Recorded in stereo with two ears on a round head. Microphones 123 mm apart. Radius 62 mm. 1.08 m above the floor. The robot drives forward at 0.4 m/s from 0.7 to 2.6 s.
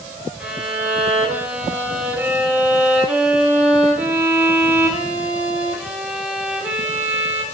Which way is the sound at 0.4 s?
10° right (ahead or behind).